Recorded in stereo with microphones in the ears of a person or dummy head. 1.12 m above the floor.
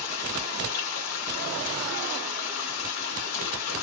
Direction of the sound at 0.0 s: 70° left (ahead or behind).